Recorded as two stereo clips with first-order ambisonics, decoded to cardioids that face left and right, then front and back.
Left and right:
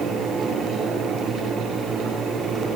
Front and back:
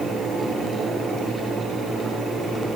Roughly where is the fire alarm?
I don't hear a fire alarm.